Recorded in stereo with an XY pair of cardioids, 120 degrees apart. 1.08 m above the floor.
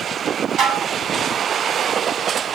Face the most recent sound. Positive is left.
turn(degrees=-60)